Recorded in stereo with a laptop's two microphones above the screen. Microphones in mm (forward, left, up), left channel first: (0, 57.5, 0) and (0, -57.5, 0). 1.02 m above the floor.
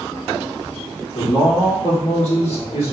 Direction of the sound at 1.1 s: 65° left (ahead or behind).